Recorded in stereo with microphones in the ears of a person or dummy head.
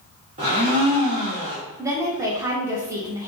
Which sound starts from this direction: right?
A blender, at 0.4 s.